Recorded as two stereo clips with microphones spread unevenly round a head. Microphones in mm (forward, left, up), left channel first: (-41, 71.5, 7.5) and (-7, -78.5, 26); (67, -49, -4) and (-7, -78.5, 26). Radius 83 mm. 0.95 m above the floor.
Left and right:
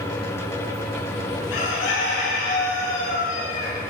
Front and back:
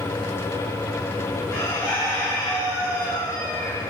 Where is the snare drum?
No snare drum in this recording.